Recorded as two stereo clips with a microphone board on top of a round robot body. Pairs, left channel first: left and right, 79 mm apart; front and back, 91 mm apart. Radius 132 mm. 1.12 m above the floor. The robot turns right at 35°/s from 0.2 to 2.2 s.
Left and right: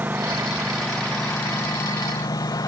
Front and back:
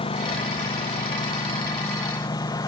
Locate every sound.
0.0 s a lawn mower: 20° right; by 2.7 s 50° left